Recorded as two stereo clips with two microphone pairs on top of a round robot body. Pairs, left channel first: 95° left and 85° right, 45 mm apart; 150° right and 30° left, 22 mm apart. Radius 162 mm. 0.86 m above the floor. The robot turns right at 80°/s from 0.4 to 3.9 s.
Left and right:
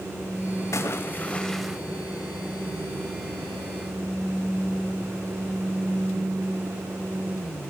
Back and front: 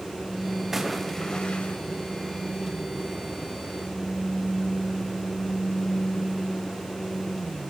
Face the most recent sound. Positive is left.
turn(degrees=5)